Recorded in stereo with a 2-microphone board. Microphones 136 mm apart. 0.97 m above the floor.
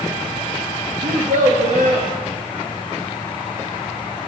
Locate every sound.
1.0 s a child speaking: 75° right (ahead or behind), 0.8 m